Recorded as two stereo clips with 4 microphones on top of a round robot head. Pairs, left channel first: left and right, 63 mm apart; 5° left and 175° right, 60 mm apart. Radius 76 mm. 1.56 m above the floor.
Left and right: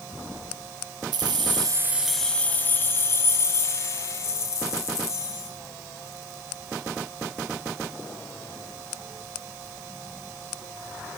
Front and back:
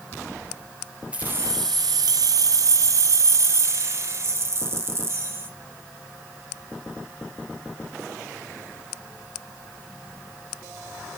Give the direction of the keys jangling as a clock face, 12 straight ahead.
3 o'clock.